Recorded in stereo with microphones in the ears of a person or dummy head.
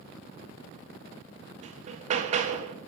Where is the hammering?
35° right (ahead or behind), 0.5 m.